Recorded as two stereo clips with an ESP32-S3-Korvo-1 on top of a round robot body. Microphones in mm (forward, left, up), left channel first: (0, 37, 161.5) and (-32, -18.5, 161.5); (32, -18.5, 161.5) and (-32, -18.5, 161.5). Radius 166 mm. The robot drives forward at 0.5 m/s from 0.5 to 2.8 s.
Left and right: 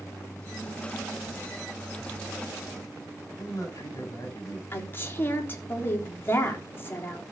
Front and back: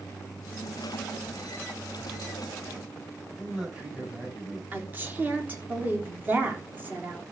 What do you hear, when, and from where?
3.4 s a man speaking: 95° left, 7.5 m
4.7 s a woman speaking: 120° left, 3.5 m